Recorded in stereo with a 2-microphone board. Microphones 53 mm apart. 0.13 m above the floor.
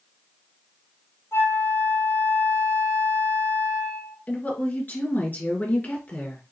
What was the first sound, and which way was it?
A flute, 70° left (ahead or behind).